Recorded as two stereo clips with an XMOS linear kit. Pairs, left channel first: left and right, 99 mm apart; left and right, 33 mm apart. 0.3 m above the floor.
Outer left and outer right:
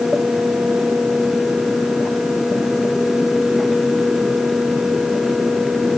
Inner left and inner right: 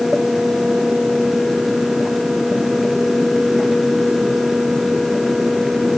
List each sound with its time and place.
Only background noise.